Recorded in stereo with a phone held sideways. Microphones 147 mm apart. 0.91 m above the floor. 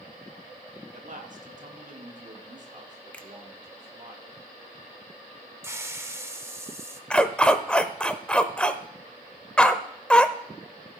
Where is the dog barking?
5° left (ahead or behind), 0.7 m.